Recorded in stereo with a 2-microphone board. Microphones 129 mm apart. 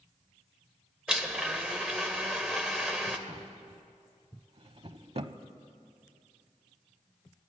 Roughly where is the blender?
Centre.